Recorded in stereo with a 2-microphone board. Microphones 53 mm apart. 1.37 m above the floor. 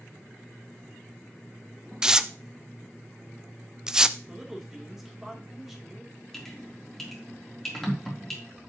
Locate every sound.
2.0 s tearing paper: 10° right (ahead or behind), 0.6 m
4.3 s a man speaking: 5° right (ahead or behind), 3.5 m
6.3 s dripping: 10° left (ahead or behind), 3.5 m